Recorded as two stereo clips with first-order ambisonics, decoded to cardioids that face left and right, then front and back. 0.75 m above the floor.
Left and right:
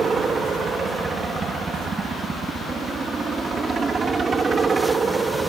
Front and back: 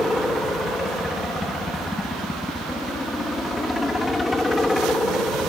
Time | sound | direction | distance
0.0 | a helicopter | 65° right | ?